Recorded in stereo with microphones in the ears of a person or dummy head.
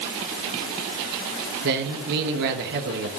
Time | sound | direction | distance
1.6 | a man speaking | 55° right (ahead or behind) | 1.1 m